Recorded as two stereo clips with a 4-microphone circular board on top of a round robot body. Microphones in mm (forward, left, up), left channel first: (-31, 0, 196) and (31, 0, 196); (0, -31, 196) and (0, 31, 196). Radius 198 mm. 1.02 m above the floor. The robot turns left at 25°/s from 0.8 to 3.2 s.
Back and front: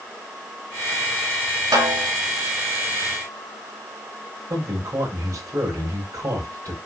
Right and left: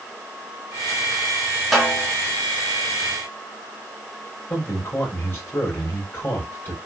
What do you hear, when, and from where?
1.7 s a snare drum: straight ahead, 3.5 m; by 2.1 s 10° right, 3.5 m
4.5 s a man speaking: 35° right, 4.5 m